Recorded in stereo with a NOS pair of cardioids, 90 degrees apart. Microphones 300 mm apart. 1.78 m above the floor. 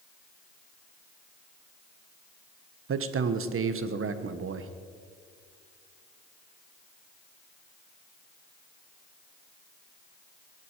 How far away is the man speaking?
About 1.5 m.